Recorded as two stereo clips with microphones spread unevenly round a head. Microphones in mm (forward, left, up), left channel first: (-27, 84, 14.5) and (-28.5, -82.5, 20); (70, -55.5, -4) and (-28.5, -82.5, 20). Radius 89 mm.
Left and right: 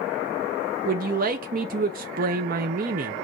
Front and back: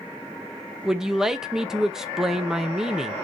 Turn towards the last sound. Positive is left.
turn(degrees=-90)